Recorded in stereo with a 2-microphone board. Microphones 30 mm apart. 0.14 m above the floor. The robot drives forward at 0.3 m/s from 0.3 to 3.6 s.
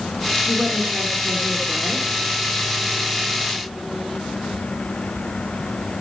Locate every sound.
0.5 s a woman speaking: centre (ahead or behind), 1.1 m